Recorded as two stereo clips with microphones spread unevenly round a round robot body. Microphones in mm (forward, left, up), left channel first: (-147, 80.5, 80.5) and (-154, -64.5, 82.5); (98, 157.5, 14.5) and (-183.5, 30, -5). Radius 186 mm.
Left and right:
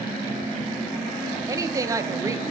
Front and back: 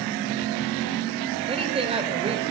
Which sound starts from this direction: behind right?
A woman speaking, at 1.5 s.